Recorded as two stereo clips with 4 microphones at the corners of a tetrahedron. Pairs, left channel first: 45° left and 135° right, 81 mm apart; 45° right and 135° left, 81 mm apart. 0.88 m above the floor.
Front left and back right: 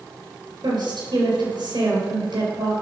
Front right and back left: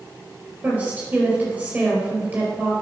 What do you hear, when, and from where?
0.6 s a woman speaking: 155° right, 4 m